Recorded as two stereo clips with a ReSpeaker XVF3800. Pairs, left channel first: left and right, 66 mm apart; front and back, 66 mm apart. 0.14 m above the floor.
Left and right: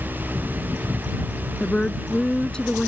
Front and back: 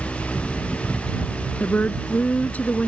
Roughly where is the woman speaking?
Ahead left.